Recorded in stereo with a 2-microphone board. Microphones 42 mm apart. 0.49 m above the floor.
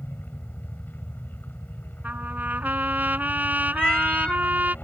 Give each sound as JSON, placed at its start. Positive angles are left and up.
{"t": 0.0, "sound": "a helicopter", "side_deg": 50}
{"t": 2.0, "sound": "a trumpet", "side_deg": -45}
{"t": 3.8, "sound": "a cat meowing", "side_deg": 25}